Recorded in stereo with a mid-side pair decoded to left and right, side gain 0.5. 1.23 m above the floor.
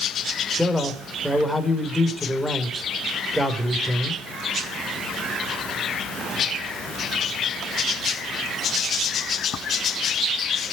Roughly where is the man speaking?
Ahead.